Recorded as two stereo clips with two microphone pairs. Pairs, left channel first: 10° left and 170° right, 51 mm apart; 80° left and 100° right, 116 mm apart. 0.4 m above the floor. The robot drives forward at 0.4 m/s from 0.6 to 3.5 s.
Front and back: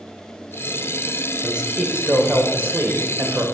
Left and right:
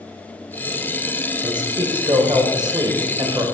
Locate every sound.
1.4 s a man speaking: 110° right, 1.3 m; by 3.5 s 145° right, 1.7 m